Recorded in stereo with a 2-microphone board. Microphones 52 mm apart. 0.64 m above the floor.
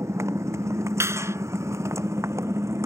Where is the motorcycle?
85° right; by 2.9 s 90° right.